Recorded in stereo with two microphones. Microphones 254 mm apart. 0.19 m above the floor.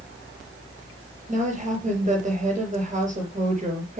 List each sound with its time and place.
1.3 s a woman speaking: 25° right (ahead or behind), 4 m